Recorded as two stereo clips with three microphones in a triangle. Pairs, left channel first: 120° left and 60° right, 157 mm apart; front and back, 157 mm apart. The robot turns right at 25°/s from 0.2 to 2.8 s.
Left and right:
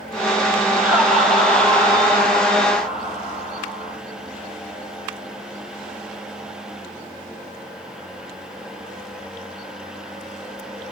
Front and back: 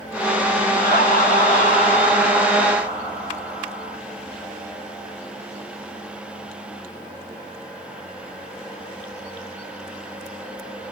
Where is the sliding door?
I don't hear a sliding door.